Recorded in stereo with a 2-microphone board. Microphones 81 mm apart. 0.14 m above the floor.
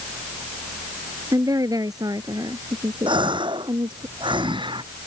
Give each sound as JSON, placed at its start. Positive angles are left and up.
{"t": 1.3, "sound": "a woman speaking", "side_deg": -50}
{"t": 3.1, "sound": "a gasp", "side_deg": -80}